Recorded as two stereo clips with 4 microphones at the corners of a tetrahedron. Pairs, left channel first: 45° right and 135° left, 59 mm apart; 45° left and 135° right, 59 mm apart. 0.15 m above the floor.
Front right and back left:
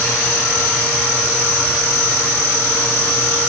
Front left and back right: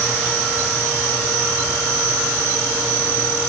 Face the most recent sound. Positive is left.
No sound to turn to.